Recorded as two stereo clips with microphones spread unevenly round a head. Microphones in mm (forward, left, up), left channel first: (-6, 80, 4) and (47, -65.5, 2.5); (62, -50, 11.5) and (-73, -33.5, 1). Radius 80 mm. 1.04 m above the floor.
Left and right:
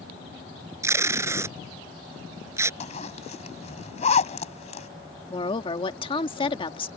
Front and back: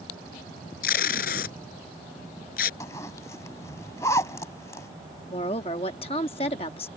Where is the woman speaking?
50° left.